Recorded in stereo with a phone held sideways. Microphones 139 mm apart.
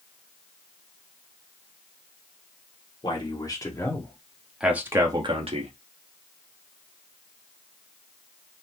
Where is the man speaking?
35° left (ahead or behind), 1.8 m; by 5.7 s 50° right (ahead or behind), 1.1 m.